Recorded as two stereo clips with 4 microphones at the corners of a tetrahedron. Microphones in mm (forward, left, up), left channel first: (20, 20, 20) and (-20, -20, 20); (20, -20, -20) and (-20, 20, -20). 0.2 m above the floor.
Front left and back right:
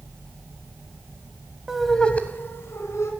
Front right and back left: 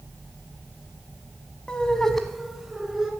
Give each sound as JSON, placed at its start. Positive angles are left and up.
{"t": 1.7, "sound": "laughter", "azimuth_deg": -75, "distance_m": 1.1}